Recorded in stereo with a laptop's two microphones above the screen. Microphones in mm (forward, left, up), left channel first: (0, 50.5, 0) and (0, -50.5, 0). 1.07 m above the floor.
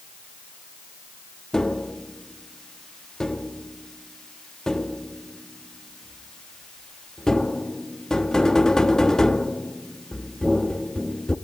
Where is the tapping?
5° left (ahead or behind), 0.9 m.